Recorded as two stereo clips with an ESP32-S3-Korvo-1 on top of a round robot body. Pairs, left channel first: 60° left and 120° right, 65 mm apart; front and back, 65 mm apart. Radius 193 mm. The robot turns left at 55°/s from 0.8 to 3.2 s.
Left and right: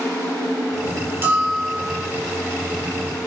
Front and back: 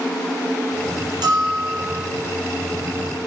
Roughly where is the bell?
Behind.